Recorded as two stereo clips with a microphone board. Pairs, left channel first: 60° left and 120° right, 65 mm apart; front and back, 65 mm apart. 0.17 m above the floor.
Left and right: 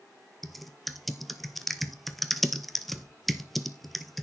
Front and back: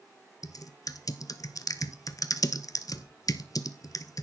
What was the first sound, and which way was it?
Typing on a keyboard, 30° right.